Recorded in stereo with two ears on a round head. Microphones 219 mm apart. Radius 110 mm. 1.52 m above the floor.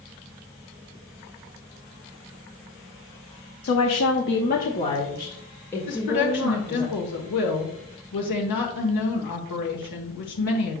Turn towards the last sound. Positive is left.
turn(degrees=85)